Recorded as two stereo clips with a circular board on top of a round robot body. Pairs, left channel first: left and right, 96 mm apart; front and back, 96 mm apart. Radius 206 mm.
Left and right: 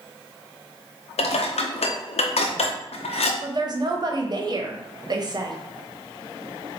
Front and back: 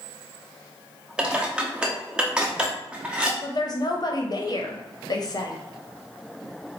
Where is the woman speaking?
45° right, 1.1 m.